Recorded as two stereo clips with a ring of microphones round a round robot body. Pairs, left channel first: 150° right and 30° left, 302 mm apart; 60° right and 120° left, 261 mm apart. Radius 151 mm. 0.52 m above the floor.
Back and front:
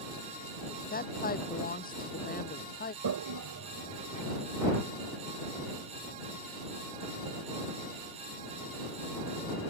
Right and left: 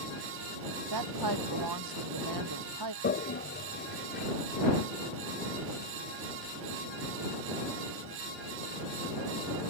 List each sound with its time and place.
0.9 s a woman speaking: 145° left
3.0 s a toilet flushing: 5° right